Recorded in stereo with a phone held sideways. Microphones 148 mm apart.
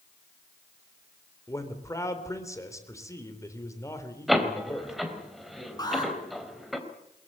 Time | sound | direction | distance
1.5 | a man speaking | 20° left (ahead or behind) | 3.5 m
4.3 | a door slam | centre (ahead or behind) | 3.5 m
5.8 | an alarm | 25° left (ahead or behind) | 7.5 m